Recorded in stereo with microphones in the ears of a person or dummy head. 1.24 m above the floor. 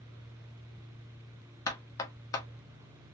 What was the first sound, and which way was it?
Knocking, 15° left (ahead or behind).